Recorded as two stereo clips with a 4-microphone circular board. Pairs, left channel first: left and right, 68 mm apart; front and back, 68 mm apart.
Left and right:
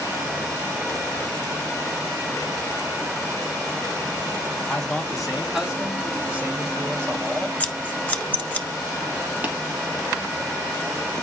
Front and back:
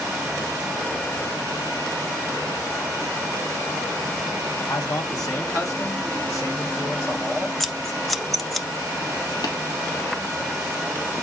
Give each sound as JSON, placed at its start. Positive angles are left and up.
{"t": 4.7, "sound": "a man speaking", "azimuth_deg": 5, "distance_m": 1.9}
{"t": 7.6, "sound": "scissors", "azimuth_deg": 80, "distance_m": 0.7}
{"t": 9.4, "sound": "tapping", "azimuth_deg": -25, "distance_m": 2.0}